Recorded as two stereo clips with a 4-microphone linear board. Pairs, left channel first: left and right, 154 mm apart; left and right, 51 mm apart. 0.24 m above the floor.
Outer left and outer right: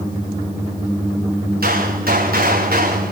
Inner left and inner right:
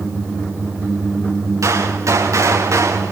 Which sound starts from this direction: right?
A gunshot, at 1.6 s.